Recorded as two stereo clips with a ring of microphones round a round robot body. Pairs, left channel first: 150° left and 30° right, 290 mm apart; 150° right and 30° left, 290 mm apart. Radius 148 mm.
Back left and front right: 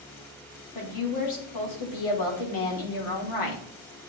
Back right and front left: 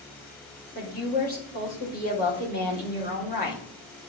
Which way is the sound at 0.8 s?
150° left.